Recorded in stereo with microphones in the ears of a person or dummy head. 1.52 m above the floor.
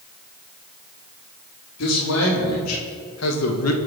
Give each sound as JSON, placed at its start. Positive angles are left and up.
{"t": 1.8, "sound": "a man speaking", "side_deg": 85, "distance_m": 4.5}